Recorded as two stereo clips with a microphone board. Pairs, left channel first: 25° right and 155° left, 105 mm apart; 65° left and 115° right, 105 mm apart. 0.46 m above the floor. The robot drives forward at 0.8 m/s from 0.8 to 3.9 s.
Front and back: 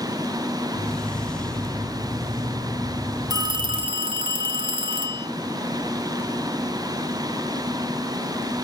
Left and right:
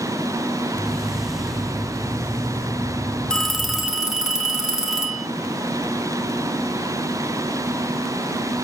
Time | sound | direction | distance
3.3 | a phone ringing | 145° left | 0.9 m